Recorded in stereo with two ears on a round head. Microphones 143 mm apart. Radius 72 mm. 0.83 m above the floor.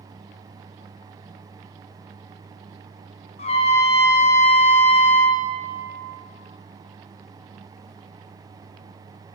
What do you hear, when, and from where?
3.4 s a trumpet: 40° left (ahead or behind), 0.6 m